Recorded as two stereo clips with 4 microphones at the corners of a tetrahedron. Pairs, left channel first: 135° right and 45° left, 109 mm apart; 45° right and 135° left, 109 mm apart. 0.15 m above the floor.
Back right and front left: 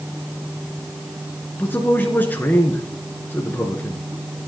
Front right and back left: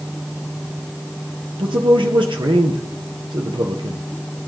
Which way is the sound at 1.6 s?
160° left.